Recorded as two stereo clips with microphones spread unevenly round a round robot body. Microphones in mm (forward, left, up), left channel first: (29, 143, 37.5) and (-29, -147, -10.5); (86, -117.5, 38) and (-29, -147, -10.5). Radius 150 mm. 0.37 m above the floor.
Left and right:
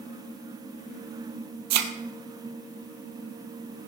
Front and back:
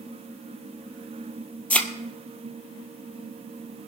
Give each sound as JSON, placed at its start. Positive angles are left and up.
{"t": 1.7, "sound": "a thud", "azimuth_deg": -60, "distance_m": 1.7}